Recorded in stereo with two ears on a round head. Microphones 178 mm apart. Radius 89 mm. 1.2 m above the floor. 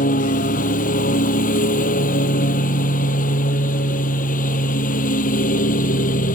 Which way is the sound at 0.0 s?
40° left (ahead or behind).